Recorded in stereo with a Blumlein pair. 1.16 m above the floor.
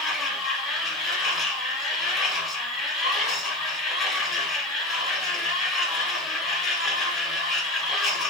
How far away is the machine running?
About 1.3 m.